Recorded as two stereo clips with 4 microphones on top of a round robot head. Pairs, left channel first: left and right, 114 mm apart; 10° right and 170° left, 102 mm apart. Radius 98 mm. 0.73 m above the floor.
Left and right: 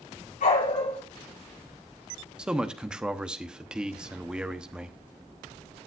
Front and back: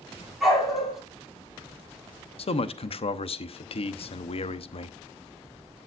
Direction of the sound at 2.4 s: 10° right.